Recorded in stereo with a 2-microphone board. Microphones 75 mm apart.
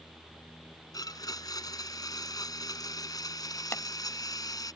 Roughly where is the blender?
Left.